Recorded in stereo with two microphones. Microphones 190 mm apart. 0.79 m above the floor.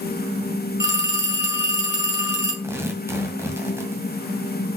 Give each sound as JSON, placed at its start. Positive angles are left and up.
{"t": 0.8, "sound": "a phone ringing", "side_deg": 75, "distance_m": 2.5}
{"t": 2.6, "sound": "tearing paper", "side_deg": -15, "distance_m": 1.9}